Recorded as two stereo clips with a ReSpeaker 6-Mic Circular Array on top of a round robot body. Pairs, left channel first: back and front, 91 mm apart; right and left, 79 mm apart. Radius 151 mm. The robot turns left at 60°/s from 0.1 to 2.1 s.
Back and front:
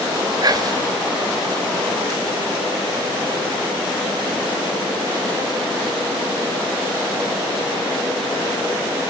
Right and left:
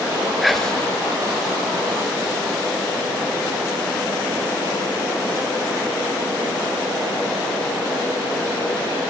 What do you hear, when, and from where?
0.4 s whispering: 5° left, 1.1 m; by 0.9 s 25° right, 1.1 m